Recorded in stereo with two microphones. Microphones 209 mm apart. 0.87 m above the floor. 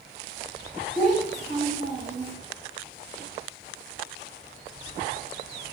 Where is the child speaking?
40° right (ahead or behind), 3 m.